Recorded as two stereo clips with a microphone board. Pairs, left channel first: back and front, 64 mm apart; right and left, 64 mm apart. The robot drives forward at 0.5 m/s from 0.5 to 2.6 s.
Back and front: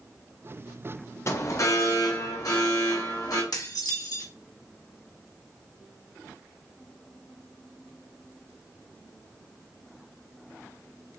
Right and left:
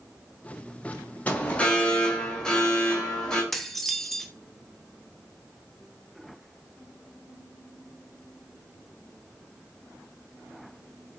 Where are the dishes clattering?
175° right, 0.9 m.